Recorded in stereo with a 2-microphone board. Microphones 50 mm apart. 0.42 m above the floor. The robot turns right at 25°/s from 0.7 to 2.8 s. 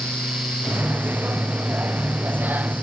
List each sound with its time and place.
Only background noise.